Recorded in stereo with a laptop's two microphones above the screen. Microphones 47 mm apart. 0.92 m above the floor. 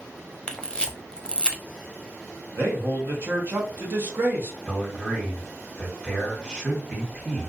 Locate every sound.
0.5 s a camera shutter: 20° left (ahead or behind), 0.5 m
2.5 s a man speaking: 45° right (ahead or behind), 1.0 m
4.7 s a man speaking: 20° right (ahead or behind), 1.6 m